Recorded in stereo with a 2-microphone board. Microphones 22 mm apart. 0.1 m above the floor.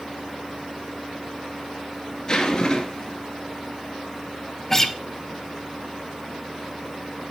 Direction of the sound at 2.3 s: 35° left (ahead or behind).